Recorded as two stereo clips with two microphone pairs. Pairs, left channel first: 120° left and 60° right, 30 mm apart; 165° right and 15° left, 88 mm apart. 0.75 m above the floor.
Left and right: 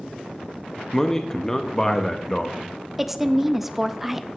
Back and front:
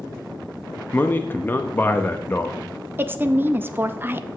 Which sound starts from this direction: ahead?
A woman speaking, at 3.0 s.